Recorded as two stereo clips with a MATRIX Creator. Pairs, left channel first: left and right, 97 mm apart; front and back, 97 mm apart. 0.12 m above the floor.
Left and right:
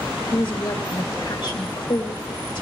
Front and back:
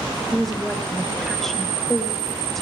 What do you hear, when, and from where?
0.3 s a woman speaking: 90° left, 2 m